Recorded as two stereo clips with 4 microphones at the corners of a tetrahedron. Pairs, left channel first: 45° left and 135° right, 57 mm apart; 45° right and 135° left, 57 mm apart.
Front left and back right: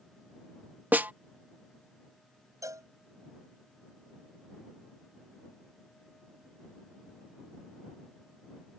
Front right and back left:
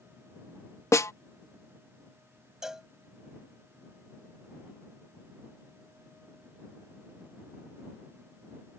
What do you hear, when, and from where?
0.9 s a snare drum: 75° right
2.6 s a cowbell: 145° right